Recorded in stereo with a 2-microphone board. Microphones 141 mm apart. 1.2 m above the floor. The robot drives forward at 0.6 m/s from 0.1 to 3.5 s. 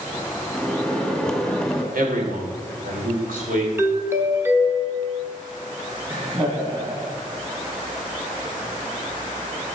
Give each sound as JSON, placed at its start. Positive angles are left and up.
{"t": 0.5, "sound": "a microwave", "side_deg": 0, "distance_m": 2.0}
{"t": 1.9, "sound": "a man speaking", "side_deg": -85, "distance_m": 3.0}
{"t": 3.8, "sound": "a doorbell", "side_deg": -15, "distance_m": 1.0}
{"t": 6.1, "sound": "laughter", "side_deg": -40, "distance_m": 2.0}